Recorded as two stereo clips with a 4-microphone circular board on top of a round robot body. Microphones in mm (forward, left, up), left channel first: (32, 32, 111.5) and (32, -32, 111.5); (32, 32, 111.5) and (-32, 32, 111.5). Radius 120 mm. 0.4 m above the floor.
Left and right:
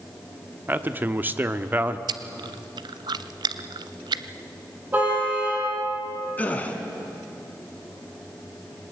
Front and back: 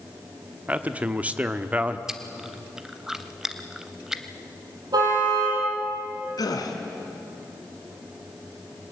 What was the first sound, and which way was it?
A man speaking, 130° right.